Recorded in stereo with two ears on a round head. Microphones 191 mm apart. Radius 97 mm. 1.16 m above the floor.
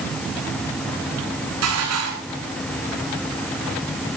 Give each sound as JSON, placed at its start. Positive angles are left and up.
{"t": 1.6, "sound": "dishes clattering", "side_deg": -80, "distance_m": 10.0}